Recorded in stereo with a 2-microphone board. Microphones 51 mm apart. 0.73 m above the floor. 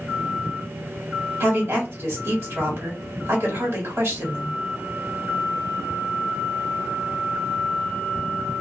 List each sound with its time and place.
1.4 s a woman speaking: 55° right (ahead or behind), 1.4 m